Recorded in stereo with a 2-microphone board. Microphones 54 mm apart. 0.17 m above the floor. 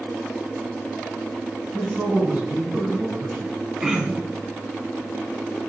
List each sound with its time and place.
1.7 s a man speaking: 25° right (ahead or behind), 1.3 m
3.8 s throat clearing: 15° right (ahead or behind), 0.6 m